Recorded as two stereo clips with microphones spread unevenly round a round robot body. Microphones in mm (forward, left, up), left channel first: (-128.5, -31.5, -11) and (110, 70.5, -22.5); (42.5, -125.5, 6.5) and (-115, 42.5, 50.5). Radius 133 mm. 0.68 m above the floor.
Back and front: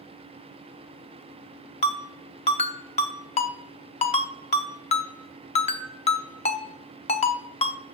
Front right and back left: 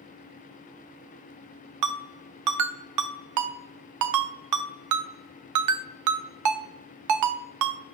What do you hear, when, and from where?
1.8 s a ringtone: 135° left, 0.7 m